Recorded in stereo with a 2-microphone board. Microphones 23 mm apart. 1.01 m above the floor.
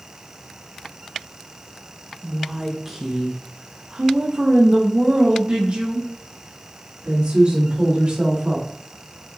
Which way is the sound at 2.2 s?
5° left (ahead or behind).